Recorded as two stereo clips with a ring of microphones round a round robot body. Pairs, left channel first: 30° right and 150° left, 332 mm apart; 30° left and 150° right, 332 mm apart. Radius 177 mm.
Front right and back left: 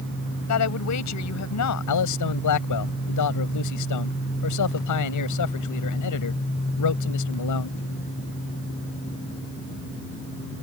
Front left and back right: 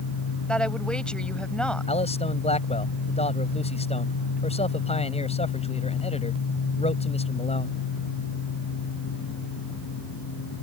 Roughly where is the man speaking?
Ahead right.